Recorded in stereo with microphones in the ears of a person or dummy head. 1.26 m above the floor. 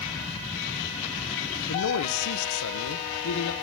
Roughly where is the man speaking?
Left.